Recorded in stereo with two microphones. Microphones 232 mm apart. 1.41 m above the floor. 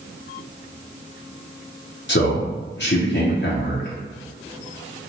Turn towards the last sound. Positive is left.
turn(degrees=55)  # may be behind; listen again after turning